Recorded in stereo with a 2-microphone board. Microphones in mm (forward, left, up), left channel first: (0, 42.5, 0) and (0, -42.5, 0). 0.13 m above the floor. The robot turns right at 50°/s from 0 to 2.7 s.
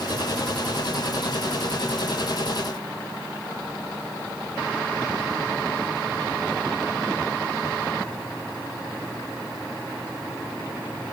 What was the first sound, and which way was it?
Only background noise.